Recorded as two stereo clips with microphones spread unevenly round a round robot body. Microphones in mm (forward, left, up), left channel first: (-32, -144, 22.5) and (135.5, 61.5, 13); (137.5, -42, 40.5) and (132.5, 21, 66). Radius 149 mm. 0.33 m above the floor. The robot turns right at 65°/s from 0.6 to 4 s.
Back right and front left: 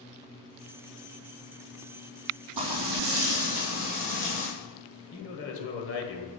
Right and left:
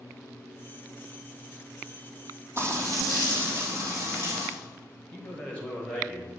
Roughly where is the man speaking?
Behind right.